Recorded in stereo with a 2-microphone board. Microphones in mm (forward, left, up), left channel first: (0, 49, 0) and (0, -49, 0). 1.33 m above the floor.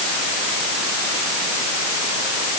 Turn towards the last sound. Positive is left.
No sound to turn to.